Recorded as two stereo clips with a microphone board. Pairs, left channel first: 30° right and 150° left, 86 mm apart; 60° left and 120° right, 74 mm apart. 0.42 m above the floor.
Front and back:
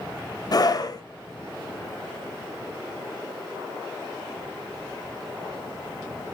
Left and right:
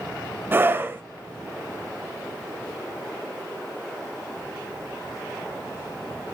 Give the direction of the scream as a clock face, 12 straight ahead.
2 o'clock.